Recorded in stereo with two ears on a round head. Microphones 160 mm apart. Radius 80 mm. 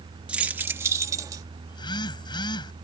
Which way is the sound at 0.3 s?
5° right (ahead or behind).